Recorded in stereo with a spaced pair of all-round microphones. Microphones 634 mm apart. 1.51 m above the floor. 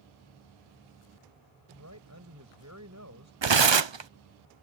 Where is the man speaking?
25° right (ahead or behind).